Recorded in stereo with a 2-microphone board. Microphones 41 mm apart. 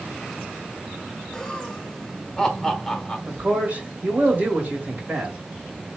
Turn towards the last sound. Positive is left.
turn(degrees=-45)  # may be behind; listen again after turning